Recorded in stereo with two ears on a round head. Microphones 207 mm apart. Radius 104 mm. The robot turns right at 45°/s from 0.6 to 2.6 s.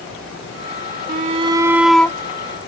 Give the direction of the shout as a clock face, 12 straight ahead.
1 o'clock.